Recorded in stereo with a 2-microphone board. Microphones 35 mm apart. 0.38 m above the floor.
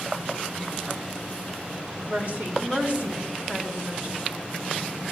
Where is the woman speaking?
55° right (ahead or behind), 2 m; by 4.2 s 20° right (ahead or behind), 2.5 m.